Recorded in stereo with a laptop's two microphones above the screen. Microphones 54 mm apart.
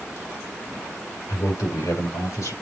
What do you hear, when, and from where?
1.3 s a man speaking: 80° left, 4.5 m; by 2.5 s 85° left, 5.5 m